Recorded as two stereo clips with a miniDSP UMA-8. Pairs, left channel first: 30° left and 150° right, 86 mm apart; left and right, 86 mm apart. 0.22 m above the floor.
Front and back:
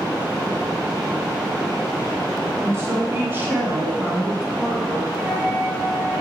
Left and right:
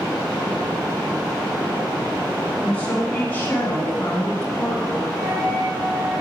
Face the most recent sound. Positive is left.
turn(degrees=-105)